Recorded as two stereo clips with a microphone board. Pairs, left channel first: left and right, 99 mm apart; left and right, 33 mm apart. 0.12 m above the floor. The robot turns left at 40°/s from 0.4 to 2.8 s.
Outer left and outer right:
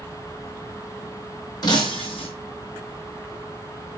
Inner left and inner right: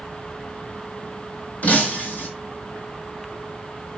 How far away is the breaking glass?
About 1.4 m.